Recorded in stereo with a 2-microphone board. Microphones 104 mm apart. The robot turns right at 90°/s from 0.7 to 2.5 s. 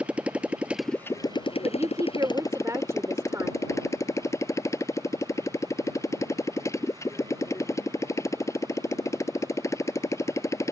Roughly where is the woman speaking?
Behind right.